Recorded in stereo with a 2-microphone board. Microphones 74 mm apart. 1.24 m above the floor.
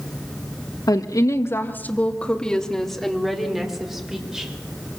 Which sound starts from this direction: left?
A woman speaking, at 0.9 s.